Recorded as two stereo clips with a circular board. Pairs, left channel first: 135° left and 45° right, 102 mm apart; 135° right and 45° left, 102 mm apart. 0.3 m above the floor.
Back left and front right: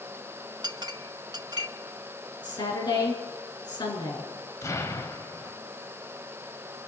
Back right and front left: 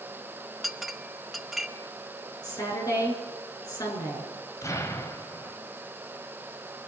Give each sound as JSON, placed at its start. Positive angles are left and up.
{"t": 0.6, "sound": "a clink", "azimuth_deg": -45, "distance_m": 0.8}
{"t": 2.4, "sound": "a woman speaking", "azimuth_deg": 175, "distance_m": 5.0}
{"t": 4.6, "sound": "an explosion", "azimuth_deg": 180, "distance_m": 1.6}